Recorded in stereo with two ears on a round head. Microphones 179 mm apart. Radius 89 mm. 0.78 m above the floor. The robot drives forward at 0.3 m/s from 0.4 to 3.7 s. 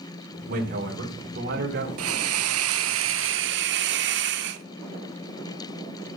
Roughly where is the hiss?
Right.